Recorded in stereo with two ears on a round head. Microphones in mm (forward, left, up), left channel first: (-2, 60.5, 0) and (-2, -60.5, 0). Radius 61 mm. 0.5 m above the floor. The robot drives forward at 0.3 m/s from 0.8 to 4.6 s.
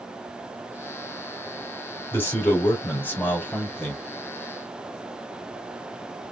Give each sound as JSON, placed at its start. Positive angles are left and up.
{"t": 2.1, "sound": "a man speaking", "side_deg": 15, "distance_m": 2.5}